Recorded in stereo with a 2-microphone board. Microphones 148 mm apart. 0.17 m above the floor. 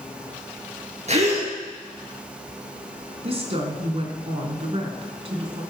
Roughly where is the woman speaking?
Right.